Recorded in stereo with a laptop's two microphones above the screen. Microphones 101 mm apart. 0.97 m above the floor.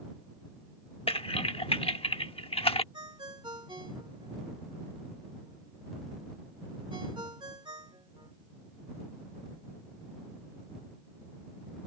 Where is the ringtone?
50° right (ahead or behind).